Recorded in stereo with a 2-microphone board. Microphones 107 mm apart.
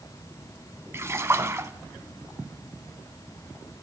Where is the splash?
25° right (ahead or behind), 0.6 m.